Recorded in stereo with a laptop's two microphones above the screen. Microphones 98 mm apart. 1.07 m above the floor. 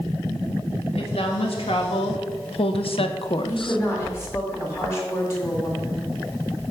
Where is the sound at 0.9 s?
70° left (ahead or behind), 2.0 m; by 3.8 s 55° left (ahead or behind), 0.6 m.